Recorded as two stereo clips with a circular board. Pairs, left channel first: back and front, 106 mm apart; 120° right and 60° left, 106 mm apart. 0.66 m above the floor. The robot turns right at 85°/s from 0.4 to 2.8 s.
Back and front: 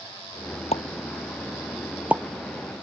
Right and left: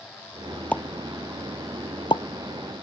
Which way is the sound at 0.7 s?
165° left.